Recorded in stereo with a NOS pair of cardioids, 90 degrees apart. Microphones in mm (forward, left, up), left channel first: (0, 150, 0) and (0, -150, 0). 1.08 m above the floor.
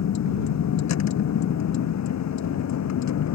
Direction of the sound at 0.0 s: 60° left.